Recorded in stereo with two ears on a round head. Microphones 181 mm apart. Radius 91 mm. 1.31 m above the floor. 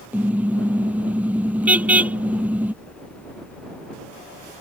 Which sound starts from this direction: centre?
A car horn, at 0.1 s.